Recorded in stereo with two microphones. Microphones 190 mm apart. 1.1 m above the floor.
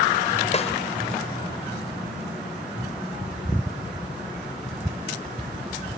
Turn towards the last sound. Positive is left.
turn(degrees=35)  # may be behind; listen again after turning